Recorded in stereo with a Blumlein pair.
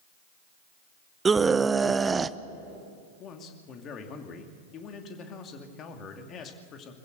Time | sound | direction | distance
1.2 | a scream | 15° right | 0.6 m
3.2 | a man speaking | 30° left | 2.5 m